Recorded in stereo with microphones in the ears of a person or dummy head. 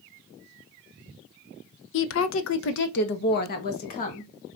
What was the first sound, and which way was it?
A woman speaking, 70° left (ahead or behind).